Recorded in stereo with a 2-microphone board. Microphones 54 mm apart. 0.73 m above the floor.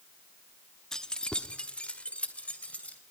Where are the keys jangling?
10° left (ahead or behind), 0.6 m; by 3.0 s 25° left (ahead or behind), 3 m.